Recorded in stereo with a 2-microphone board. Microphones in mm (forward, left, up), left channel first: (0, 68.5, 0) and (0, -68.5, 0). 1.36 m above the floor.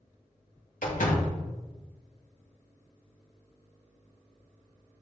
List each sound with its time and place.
0.8 s a door slam: 80° left, 1.7 m